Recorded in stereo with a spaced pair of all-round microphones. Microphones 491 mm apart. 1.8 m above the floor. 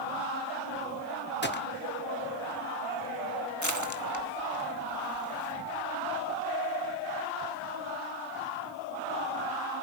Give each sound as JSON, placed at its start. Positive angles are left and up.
{"t": 1.4, "sound": "a gunshot", "side_deg": 20, "distance_m": 1.0}
{"t": 3.6, "sound": "crushing", "side_deg": 35, "distance_m": 1.5}